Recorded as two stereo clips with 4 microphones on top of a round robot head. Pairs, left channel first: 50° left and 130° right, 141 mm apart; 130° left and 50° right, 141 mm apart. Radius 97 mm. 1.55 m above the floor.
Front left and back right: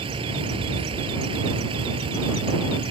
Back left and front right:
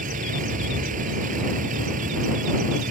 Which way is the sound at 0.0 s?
80° right.